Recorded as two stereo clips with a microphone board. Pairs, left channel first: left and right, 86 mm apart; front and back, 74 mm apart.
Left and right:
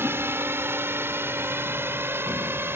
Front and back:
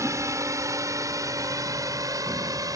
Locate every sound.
0.0 s a drone: 145° right; by 2.8 s 150° right